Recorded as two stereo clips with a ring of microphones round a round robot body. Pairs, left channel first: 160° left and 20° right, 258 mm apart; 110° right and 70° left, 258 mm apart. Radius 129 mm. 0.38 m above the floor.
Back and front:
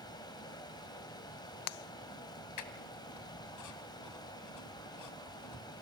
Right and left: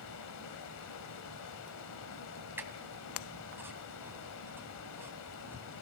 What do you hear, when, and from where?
0.0 s running water: 130° right, 1.6 m
2.6 s a squeak: 150° left, 1.6 m